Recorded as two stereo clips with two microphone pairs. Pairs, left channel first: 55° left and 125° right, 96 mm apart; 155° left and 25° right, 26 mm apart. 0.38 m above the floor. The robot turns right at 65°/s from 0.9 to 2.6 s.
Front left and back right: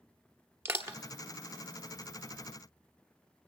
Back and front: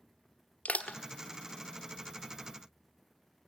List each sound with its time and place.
0.7 s crushing: 170° left, 1.2 m; by 1.0 s 175° left, 1.2 m